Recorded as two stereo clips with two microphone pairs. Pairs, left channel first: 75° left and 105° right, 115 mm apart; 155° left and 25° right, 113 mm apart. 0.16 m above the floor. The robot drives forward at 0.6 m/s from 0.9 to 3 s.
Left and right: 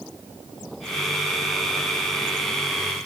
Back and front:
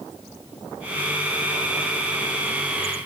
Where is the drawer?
No drawer in this recording.